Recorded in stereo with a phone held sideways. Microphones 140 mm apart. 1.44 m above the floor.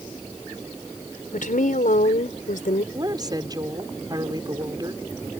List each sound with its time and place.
1.3 s a woman speaking: 70° left (ahead or behind)
2.9 s a woman speaking: 30° right (ahead or behind)